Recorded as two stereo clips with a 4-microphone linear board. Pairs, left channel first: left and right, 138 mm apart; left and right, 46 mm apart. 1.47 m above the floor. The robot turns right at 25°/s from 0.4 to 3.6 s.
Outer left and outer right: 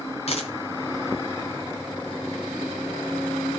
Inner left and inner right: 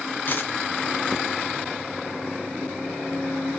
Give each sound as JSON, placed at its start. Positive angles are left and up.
{"t": 0.3, "sound": "a dropped coin", "side_deg": 50, "distance_m": 2.5}